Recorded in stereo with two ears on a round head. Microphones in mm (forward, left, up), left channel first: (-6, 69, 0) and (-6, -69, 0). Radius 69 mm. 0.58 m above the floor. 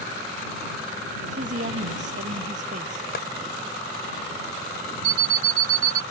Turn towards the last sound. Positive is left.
turn(degrees=-55)  # may be behind; listen again after turning